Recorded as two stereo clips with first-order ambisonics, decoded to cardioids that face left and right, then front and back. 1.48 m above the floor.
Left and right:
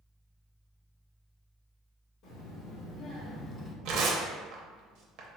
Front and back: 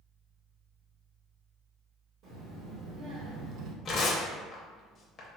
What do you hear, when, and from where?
2.2 s a child speaking: 135° left, 1.4 m; by 3.8 s 155° left, 0.5 m
3.9 s tearing paper: 65° right, 0.7 m